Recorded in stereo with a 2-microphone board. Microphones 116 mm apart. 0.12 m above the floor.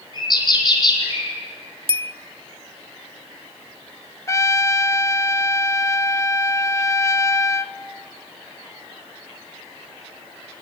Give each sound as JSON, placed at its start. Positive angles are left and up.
{"t": 0.1, "sound": "a bird", "side_deg": 40, "distance_m": 4.0}
{"t": 1.9, "sound": "a bell", "side_deg": -50, "distance_m": 0.6}
{"t": 4.3, "sound": "a trumpet", "side_deg": 25, "distance_m": 0.6}